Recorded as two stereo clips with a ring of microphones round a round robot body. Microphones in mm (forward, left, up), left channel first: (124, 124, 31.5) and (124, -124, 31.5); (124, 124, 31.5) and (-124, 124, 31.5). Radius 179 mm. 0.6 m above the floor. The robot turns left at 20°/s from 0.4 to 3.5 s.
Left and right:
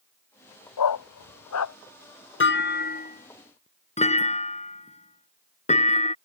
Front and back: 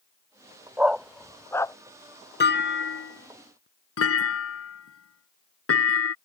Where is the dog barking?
95° left; by 1.8 s 75° left.